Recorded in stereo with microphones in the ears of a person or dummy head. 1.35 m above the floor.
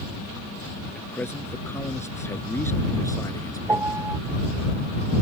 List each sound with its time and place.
0.9 s a man speaking: 10° left (ahead or behind); by 4.1 s 20° left (ahead or behind)
3.7 s a piano: 10° right (ahead or behind)